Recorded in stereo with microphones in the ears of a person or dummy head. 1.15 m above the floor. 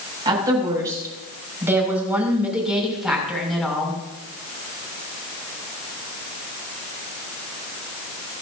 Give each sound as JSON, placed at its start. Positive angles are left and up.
{"t": 0.2, "sound": "a woman speaking", "side_deg": -20, "distance_m": 6.5}